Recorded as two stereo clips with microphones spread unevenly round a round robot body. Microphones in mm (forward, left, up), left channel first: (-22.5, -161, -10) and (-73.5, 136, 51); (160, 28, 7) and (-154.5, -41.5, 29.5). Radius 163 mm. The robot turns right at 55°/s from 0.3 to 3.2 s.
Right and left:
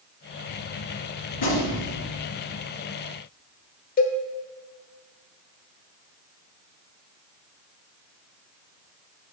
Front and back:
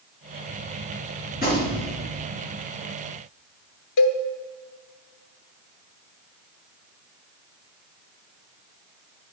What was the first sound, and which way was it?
A gunshot, 55° right.